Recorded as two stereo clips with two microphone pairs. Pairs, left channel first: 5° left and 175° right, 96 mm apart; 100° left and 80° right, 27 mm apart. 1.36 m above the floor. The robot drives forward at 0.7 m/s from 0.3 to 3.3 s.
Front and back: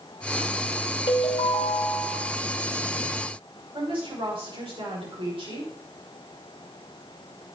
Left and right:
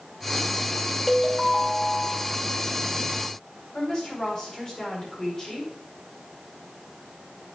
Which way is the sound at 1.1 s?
20° left.